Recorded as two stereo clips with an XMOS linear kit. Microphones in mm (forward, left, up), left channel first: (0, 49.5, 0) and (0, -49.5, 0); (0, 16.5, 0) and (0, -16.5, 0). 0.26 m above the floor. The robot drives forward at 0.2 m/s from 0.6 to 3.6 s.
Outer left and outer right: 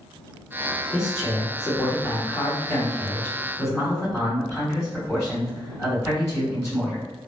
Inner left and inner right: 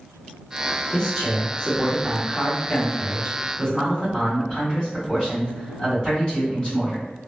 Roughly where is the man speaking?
Left.